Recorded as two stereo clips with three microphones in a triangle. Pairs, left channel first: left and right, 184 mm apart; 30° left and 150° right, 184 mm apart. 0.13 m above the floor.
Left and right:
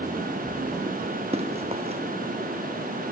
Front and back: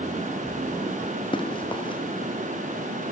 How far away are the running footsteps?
About 2.5 m.